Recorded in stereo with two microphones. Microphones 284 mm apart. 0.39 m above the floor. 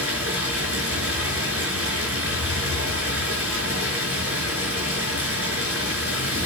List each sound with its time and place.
0.0 s running water: 50° right (ahead or behind), 5.5 m